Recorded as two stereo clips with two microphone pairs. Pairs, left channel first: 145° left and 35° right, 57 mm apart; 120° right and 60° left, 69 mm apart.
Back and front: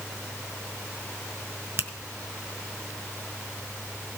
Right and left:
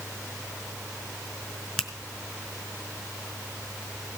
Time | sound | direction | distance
1.8 | a finger snap | 40° right | 1.1 m